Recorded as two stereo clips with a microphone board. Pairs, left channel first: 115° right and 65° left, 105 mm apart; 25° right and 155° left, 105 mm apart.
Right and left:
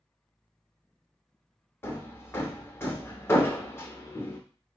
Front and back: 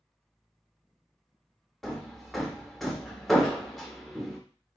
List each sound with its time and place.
1.8 s hammering: 110° right, 0.7 m